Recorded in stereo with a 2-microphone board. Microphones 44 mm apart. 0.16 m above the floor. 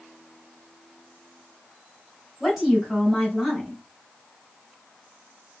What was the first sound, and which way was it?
A woman speaking, 10° right (ahead or behind).